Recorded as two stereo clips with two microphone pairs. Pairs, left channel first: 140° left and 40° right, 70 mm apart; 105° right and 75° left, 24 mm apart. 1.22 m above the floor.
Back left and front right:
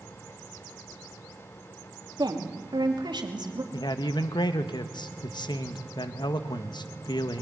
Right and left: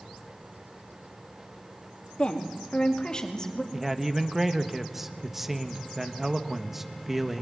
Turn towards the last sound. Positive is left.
turn(degrees=155)